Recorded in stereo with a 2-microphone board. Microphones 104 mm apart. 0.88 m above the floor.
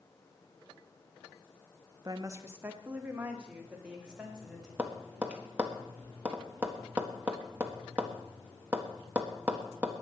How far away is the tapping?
About 1.5 m.